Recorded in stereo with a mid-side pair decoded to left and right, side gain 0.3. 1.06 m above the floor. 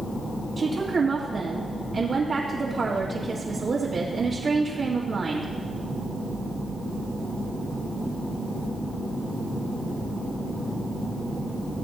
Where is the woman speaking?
55° right, 1.8 m.